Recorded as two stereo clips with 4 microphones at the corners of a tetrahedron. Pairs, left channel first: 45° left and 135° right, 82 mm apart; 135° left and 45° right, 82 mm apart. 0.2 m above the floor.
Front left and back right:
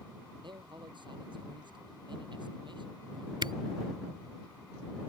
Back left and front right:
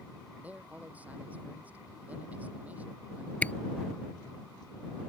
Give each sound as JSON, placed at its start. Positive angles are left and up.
{"t": 0.4, "sound": "a man speaking", "azimuth_deg": -115}
{"t": 3.4, "sound": "a camera shutter", "azimuth_deg": -155}